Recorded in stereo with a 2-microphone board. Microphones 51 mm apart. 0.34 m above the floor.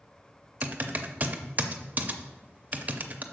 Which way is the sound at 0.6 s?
35° right (ahead or behind).